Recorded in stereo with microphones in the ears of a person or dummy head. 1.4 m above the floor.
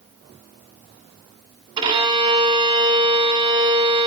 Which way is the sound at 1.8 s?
25° right (ahead or behind).